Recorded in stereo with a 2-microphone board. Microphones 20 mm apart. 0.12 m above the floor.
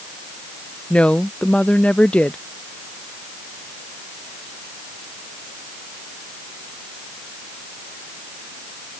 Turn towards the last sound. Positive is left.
turn(degrees=85)